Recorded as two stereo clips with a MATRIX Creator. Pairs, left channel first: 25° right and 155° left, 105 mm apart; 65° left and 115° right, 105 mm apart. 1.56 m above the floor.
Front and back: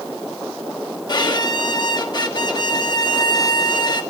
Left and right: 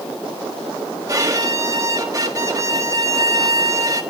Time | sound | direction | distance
1.1 | a violin | 60° right | 1.5 m